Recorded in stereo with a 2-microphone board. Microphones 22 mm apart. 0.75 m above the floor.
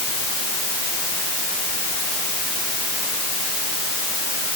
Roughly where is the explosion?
I don't hear an explosion.